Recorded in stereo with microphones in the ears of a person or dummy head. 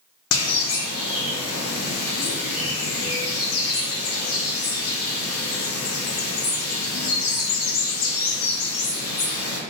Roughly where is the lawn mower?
I don't hear a lawn mower.